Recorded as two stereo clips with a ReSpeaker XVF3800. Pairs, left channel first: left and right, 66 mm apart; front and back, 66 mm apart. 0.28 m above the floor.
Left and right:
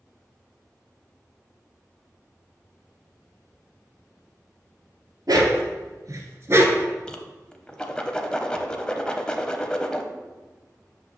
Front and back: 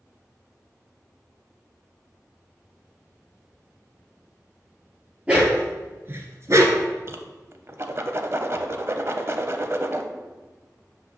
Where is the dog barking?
110° right, 1.5 m; by 6.9 s 150° right, 0.9 m.